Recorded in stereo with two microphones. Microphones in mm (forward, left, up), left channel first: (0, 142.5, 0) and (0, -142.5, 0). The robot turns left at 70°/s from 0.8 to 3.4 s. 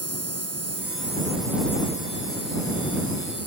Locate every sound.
0.0 s an insect: 125° right; by 3.5 s 55° left